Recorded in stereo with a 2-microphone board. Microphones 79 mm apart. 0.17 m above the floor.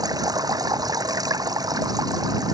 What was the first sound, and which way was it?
Running water, 55° right (ahead or behind).